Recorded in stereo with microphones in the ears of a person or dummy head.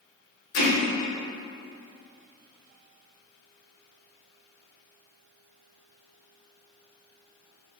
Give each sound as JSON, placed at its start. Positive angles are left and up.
{"t": 0.5, "sound": "hammering", "side_deg": 65, "distance_m": 1.7}